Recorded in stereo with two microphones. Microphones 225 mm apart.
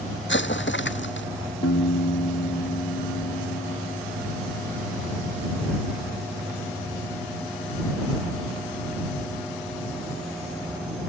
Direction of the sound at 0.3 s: 50° left (ahead or behind).